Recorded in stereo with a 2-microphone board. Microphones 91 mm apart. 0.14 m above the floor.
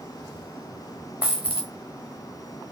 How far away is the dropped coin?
About 2 m.